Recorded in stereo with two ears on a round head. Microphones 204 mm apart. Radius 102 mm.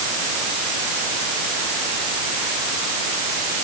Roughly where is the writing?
I don't hear writing.